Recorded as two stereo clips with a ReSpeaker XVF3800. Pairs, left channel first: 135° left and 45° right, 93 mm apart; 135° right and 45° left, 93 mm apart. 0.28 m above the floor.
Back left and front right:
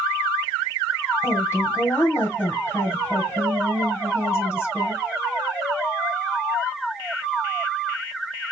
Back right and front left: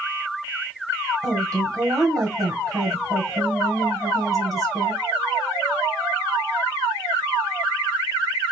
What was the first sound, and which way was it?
A woman speaking, 85° left.